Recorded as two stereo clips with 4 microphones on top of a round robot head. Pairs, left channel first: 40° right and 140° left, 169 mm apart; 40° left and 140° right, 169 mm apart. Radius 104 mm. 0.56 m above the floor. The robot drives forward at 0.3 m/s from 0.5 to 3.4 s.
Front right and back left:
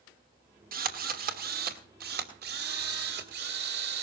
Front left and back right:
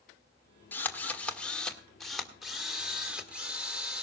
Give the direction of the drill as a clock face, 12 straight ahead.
8 o'clock.